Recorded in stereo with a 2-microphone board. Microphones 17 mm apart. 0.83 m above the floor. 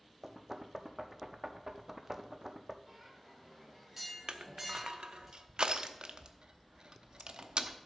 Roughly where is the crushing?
Right.